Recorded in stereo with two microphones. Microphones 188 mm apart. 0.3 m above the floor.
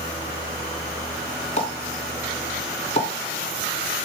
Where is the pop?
35° left (ahead or behind), 3 m.